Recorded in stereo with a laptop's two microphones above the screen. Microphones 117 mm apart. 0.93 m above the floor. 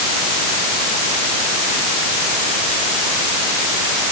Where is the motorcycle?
I don't hear a motorcycle.